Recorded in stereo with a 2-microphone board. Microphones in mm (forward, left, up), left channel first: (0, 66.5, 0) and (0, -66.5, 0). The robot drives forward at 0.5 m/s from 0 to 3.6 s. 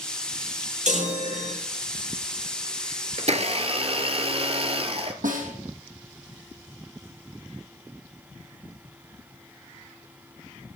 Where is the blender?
55° right (ahead or behind), 0.8 m; by 5.1 s 45° right (ahead or behind), 0.9 m.